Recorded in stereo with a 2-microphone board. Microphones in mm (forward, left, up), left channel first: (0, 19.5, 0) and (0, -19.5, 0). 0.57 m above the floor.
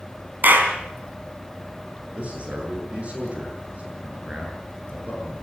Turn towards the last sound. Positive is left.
turn(degrees=-35)  # may be behind; listen again after turning